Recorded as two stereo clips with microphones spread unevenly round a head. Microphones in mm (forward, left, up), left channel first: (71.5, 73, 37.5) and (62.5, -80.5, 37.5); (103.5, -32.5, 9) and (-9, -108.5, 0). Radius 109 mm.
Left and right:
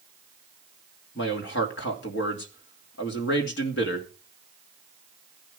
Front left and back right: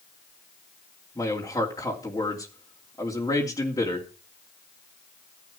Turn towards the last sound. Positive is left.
turn(degrees=110)